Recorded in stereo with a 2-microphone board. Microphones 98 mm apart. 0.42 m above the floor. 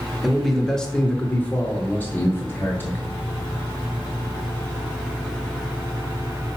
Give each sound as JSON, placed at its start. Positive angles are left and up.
{"t": 0.2, "sound": "a man speaking", "side_deg": 0, "distance_m": 0.9}